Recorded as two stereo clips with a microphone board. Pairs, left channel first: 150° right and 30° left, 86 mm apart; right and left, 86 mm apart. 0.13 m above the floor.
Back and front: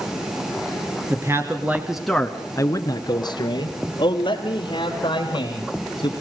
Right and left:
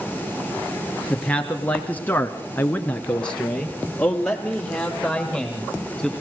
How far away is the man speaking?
About 1.7 m.